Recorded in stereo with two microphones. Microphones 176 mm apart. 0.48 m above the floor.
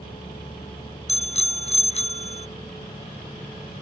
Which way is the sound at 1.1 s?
40° left (ahead or behind).